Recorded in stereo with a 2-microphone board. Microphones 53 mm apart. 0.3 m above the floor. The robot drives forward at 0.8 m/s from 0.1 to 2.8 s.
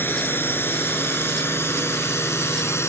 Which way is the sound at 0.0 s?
40° left (ahead or behind).